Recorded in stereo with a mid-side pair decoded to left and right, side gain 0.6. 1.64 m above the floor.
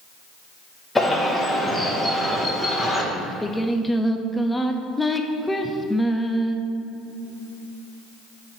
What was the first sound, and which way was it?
A bird, 10° left.